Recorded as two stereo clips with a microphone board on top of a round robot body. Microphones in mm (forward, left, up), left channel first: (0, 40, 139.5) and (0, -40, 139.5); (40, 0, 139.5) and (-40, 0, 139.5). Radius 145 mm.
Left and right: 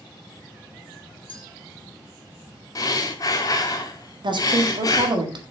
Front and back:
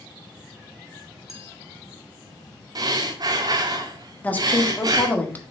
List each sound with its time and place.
1.3 s a clink: 90° left, 2 m
2.8 s breathing: 140° left, 0.6 m
4.2 s a woman speaking: 70° right, 1.8 m